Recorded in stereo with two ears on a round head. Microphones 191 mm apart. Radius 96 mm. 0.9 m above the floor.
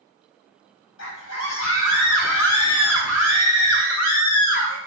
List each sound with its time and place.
1.0 s a scream: 75° left (ahead or behind), 6.5 m; by 4.8 s 85° left, 8 m